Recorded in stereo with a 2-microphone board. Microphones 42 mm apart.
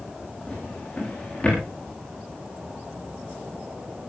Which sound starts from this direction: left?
A drawer, at 0.5 s.